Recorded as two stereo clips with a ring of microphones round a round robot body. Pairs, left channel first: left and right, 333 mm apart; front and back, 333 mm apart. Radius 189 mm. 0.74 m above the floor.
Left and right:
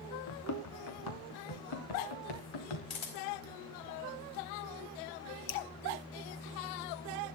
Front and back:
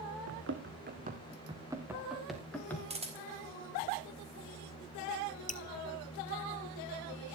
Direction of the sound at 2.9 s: 110° left.